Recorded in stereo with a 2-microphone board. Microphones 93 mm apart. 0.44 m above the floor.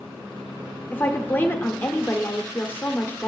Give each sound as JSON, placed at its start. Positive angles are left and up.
{"t": 0.9, "sound": "a woman speaking", "side_deg": 25, "distance_m": 0.8}